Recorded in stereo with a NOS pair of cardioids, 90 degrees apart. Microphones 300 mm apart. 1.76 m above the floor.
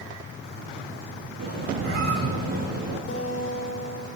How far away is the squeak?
About 9.5 m.